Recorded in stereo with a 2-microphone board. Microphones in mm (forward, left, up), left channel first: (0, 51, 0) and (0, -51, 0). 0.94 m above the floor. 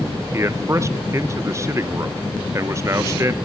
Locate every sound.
0.3 s a man speaking: 30° right (ahead or behind), 0.6 m